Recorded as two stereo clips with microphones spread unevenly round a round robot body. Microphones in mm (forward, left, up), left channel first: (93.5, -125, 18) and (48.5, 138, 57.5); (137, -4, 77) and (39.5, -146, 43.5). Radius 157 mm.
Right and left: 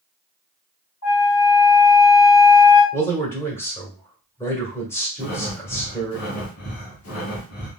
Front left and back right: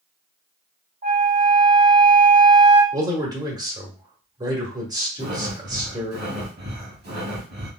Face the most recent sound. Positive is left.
turn(degrees=-130)